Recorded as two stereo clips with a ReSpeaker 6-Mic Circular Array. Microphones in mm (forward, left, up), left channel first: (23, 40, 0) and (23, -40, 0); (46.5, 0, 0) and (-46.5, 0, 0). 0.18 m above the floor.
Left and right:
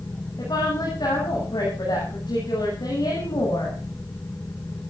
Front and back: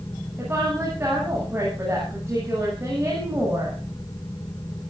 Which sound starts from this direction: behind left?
A woman speaking, at 0.4 s.